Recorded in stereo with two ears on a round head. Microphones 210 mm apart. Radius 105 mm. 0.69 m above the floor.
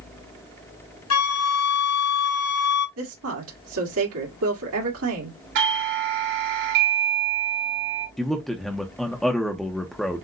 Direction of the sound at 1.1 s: 70° left (ahead or behind).